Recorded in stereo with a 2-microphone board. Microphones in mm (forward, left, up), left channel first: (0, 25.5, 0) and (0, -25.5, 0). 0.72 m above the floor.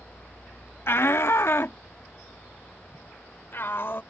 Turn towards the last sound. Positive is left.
turn(degrees=50)  # may be behind; listen again after turning